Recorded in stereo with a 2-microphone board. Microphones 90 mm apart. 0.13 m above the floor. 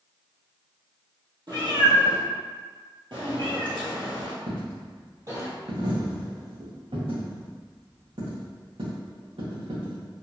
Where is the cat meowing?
55° right (ahead or behind), 1.8 m; by 5.5 s 40° right (ahead or behind), 1.6 m.